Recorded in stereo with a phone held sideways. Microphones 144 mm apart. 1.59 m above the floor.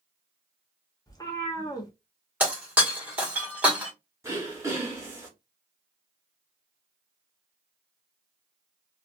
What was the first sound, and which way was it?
A cat meowing, 25° left (ahead or behind).